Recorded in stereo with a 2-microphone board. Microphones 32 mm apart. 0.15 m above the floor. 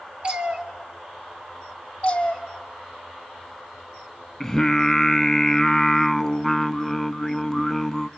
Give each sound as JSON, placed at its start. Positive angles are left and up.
{"t": 0.2, "sound": "a cat meowing", "side_deg": -30, "distance_m": 1.6}
{"t": 2.0, "sound": "a cat meowing", "side_deg": 30, "distance_m": 2.0}
{"t": 4.4, "sound": "singing", "side_deg": 10, "distance_m": 0.6}